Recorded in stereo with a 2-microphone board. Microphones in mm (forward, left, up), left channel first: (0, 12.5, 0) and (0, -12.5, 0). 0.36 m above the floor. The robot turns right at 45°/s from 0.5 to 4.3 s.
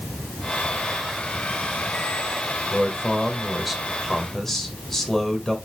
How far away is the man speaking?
About 1.8 m.